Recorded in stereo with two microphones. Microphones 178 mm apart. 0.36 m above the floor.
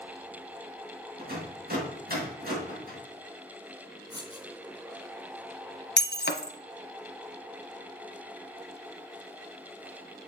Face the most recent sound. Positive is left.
turn(degrees=70)  # may be behind; listen again after turning